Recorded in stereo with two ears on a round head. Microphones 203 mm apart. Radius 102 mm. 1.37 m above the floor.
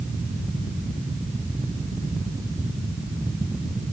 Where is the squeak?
No squeak in this recording.